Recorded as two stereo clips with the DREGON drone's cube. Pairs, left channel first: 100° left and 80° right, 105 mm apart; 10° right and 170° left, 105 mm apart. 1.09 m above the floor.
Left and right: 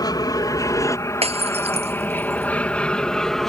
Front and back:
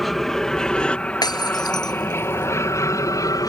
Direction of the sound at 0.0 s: 75° left.